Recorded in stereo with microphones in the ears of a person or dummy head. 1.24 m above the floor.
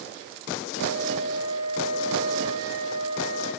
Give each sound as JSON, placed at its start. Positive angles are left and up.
{"t": 0.8, "sound": "a flute", "side_deg": 70, "distance_m": 3.0}